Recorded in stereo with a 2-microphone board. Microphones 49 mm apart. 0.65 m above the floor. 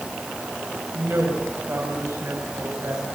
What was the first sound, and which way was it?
A woman speaking, 50° right (ahead or behind).